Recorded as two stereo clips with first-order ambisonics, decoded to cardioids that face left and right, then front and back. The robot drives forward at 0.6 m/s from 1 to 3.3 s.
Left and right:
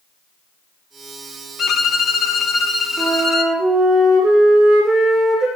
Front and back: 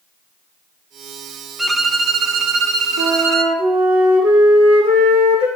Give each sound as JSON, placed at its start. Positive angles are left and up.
{"t": 1.6, "sound": "a violin", "azimuth_deg": 95, "distance_m": 0.7}
{"t": 3.0, "sound": "a flute", "azimuth_deg": 180, "distance_m": 4.0}